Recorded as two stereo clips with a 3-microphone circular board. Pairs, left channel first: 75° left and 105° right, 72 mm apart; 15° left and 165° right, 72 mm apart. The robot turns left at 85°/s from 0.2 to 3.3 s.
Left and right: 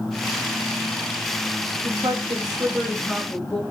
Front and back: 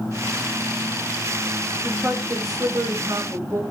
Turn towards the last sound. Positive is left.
turn(degrees=150)